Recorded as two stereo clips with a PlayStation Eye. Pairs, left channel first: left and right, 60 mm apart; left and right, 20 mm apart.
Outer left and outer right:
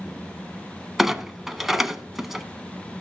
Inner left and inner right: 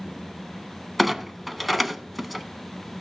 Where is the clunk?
5° right (ahead or behind), 0.8 m.